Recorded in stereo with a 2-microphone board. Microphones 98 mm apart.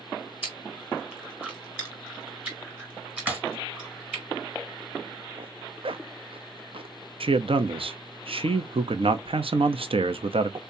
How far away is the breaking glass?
About 2 m.